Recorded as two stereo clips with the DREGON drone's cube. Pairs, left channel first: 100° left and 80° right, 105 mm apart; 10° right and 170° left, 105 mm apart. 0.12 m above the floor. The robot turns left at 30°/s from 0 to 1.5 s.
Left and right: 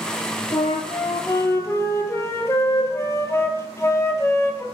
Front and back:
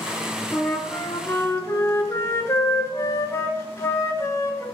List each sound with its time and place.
0.5 s a flute: 75° left, 0.5 m; by 4.7 s 45° left, 0.5 m